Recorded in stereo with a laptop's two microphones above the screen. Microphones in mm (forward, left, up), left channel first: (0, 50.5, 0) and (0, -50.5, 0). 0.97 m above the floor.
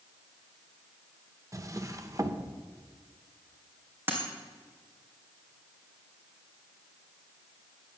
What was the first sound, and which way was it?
A drawer, 30° right (ahead or behind).